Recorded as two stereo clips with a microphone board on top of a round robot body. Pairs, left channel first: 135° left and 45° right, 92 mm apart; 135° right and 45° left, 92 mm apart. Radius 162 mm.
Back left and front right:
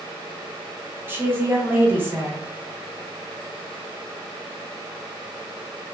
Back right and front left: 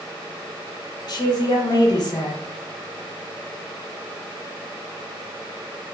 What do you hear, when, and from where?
1.1 s a woman speaking: 110° right, 1.0 m